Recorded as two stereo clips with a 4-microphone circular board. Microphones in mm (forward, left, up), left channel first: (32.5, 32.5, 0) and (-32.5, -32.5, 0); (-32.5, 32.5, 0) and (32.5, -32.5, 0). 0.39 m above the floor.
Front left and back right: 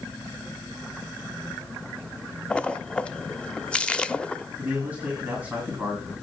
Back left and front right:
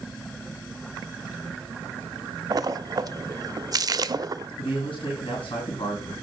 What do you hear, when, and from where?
2.5 s a splash: 30° right, 0.5 m
4.6 s a man speaking: 150° left, 3.5 m